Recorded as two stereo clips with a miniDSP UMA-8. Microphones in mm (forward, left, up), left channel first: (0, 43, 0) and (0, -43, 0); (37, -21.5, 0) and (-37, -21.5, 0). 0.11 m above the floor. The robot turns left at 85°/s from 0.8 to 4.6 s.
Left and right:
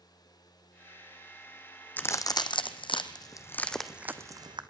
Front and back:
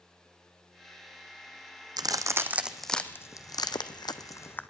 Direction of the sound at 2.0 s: 160° left.